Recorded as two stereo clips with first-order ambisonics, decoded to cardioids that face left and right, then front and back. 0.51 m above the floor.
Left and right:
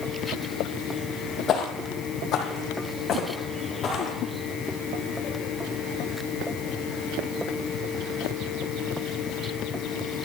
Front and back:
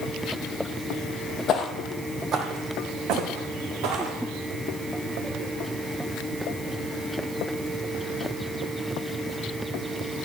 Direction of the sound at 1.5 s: 45° left.